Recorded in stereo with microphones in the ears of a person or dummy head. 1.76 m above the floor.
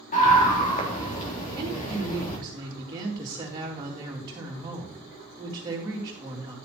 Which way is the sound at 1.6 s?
25° right (ahead or behind).